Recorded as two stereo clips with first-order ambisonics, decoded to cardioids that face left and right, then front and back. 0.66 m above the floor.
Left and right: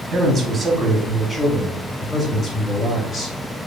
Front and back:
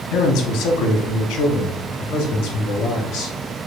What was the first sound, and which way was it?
A man speaking, 20° right.